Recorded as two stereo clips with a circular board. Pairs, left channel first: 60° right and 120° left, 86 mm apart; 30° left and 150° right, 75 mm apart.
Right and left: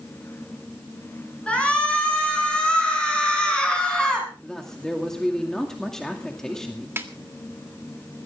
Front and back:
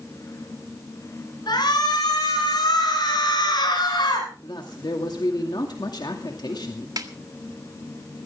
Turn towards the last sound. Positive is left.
turn(degrees=180)